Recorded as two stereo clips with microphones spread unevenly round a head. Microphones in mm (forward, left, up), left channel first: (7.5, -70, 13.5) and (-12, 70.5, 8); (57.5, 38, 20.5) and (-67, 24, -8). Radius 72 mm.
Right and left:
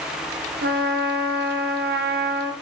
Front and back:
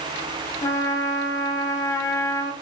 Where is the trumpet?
70° left, 0.6 m.